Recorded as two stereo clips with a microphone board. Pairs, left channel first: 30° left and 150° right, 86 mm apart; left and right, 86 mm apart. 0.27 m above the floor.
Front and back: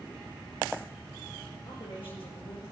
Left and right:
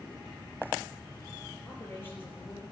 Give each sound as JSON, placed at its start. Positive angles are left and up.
{"t": 1.6, "sound": "a woman speaking", "azimuth_deg": 25, "distance_m": 7.0}